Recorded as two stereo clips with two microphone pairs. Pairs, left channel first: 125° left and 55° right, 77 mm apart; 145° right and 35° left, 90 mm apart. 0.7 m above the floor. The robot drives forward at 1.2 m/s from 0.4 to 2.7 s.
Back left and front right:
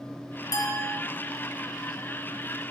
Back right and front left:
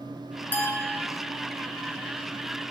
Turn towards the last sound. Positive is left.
turn(degrees=170)